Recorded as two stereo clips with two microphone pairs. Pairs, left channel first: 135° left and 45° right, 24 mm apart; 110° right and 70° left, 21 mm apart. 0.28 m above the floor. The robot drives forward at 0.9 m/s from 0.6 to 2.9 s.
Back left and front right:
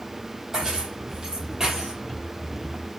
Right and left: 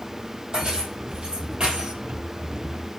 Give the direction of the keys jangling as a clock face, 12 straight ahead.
11 o'clock.